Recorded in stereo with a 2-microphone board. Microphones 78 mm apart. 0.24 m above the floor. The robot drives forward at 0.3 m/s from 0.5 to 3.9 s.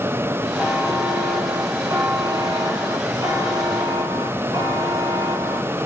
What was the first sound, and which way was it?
A buzzer, 45° right (ahead or behind).